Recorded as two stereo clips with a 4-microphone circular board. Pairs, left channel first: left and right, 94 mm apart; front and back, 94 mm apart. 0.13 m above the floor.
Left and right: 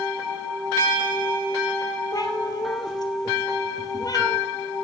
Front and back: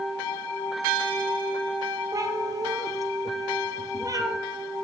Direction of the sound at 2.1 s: 135° left.